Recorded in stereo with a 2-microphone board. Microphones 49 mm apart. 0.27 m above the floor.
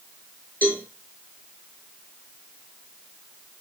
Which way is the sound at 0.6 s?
35° left (ahead or behind).